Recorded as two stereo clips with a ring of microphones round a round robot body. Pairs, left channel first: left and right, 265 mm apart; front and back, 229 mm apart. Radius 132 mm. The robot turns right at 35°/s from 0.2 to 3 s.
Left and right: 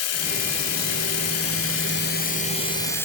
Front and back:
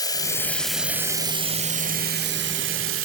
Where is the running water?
70° left, 1.3 m; by 3.1 s 170° left, 1.3 m.